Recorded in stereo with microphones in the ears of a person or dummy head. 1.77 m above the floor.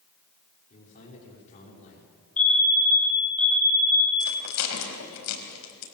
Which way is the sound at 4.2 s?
75° left (ahead or behind).